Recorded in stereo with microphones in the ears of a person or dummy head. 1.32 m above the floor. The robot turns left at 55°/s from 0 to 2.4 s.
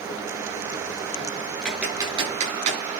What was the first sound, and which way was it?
Typing on a keyboard, centre (ahead or behind).